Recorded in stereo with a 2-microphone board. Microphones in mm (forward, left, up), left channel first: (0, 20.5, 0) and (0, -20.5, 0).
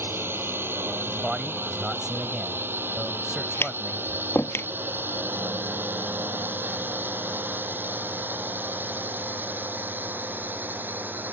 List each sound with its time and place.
0.0 s a drone: 65° right (ahead or behind); by 11.3 s 50° right (ahead or behind)
1.1 s a man speaking: 15° right (ahead or behind)
3.6 s tapping: 85° left